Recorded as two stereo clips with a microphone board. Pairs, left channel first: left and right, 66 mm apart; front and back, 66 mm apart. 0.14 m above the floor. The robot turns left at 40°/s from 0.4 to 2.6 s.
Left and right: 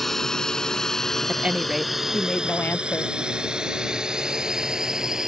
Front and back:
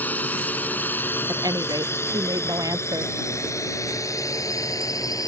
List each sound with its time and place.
0.0 s a drone: 10° left; by 5.3 s 10° right
1.3 s a woman speaking: 155° right; by 3.1 s 155° left